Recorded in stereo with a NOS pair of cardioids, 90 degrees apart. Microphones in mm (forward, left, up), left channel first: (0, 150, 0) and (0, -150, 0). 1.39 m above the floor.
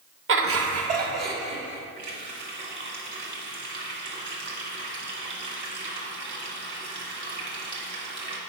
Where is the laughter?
45° right, 1.0 m; by 1.8 s 60° right, 3 m.